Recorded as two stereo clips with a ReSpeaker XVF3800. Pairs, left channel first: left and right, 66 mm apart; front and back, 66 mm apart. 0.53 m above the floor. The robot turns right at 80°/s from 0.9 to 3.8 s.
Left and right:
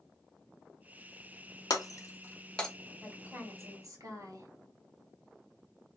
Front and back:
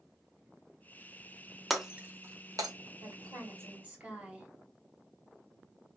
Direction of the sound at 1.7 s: 90° left.